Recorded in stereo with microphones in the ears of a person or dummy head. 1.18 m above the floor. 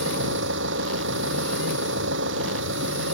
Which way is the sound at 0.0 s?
70° right (ahead or behind).